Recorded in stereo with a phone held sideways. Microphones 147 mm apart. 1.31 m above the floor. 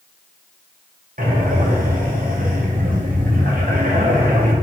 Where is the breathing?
65° right (ahead or behind), 1.0 m.